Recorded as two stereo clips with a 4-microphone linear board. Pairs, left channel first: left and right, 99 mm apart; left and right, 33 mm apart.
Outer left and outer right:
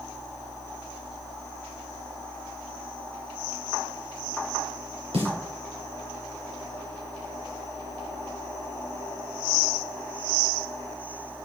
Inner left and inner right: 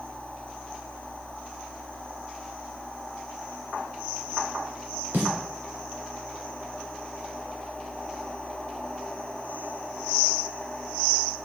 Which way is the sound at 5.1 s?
80° right.